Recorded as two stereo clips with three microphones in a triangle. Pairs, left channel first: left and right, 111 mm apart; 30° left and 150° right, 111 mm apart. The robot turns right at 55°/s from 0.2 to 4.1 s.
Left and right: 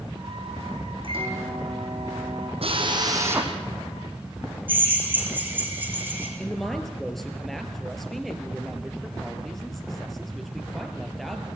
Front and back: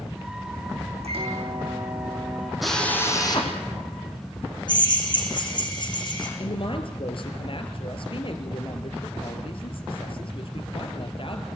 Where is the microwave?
130° right, 6.5 m; by 2.5 s 45° right, 6.5 m.